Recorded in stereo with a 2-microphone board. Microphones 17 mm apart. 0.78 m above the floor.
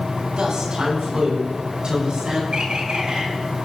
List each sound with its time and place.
0.4 s a woman speaking: 55° right (ahead or behind), 6 m; by 2.4 s 60° right (ahead or behind), 8 m
2.5 s a bird: 75° right (ahead or behind), 4 m